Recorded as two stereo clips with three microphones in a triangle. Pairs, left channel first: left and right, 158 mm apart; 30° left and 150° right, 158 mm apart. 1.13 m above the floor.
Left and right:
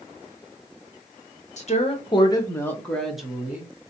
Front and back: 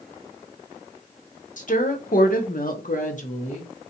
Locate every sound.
1.6 s a woman speaking: 55° left, 0.9 m; by 3.9 s 20° right, 1.2 m